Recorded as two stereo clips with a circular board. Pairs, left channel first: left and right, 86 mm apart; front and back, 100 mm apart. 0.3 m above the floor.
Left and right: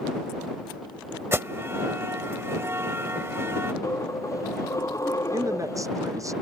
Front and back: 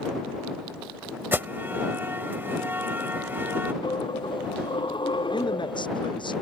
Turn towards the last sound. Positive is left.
turn(degrees=-40)